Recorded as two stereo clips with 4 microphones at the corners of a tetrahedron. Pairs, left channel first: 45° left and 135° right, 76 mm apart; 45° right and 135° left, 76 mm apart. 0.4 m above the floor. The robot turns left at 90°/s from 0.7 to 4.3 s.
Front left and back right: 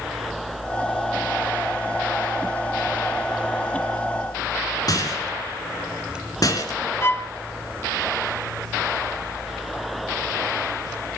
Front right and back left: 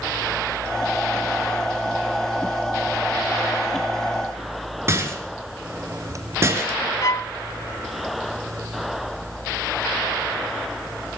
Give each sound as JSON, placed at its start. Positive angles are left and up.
{"t": 4.9, "sound": "a rattle", "azimuth_deg": 80, "distance_m": 4.0}
{"t": 7.0, "sound": "a violin", "azimuth_deg": -10, "distance_m": 0.9}